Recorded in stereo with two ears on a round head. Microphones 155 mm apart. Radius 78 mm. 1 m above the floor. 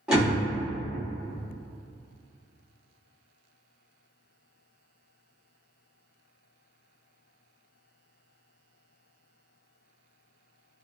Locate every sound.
0.1 s a door slam: 5° right (ahead or behind), 1.2 m